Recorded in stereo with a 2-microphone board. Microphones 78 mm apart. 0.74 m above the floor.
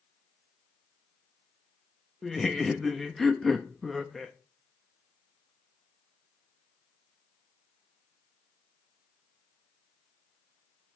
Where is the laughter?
5° left (ahead or behind), 0.6 m.